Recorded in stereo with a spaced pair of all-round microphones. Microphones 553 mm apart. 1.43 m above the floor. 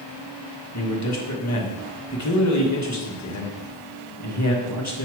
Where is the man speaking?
35° left (ahead or behind), 1.3 m.